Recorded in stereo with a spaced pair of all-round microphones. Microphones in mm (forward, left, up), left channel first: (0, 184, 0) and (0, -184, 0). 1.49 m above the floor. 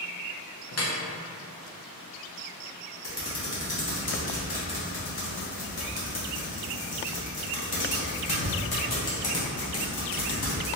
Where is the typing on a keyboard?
75° left (ahead or behind), 0.9 m.